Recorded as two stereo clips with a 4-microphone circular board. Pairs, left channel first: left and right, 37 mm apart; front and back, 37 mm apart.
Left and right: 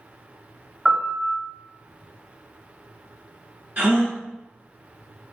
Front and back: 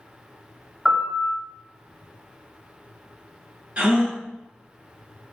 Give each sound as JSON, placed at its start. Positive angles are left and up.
{"t": 0.8, "sound": "a piano", "azimuth_deg": -115, "distance_m": 1.4}
{"t": 3.8, "sound": "a gasp", "azimuth_deg": -130, "distance_m": 1.0}